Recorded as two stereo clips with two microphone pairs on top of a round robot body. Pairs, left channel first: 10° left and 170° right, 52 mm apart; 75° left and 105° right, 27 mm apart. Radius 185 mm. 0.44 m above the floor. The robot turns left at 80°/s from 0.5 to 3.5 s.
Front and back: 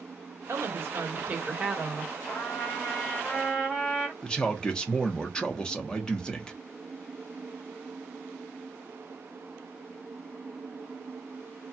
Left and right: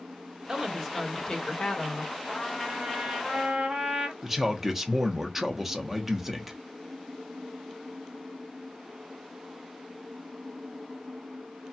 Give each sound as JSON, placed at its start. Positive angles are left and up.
{"t": 0.5, "sound": "a woman speaking", "azimuth_deg": -160, "distance_m": 1.5}
{"t": 2.3, "sound": "a trumpet", "azimuth_deg": 10, "distance_m": 1.9}
{"t": 4.2, "sound": "a man speaking", "azimuth_deg": -45, "distance_m": 1.1}